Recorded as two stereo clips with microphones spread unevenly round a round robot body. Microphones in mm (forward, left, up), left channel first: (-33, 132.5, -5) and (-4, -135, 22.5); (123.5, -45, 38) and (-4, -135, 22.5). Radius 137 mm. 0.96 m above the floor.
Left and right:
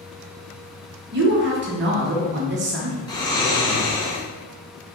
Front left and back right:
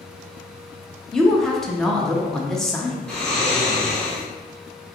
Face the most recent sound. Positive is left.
turn(degrees=130)